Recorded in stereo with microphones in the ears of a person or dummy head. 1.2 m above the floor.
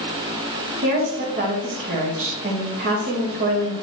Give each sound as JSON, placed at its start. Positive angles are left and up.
{"t": 0.8, "sound": "a woman speaking", "side_deg": -50, "distance_m": 2.0}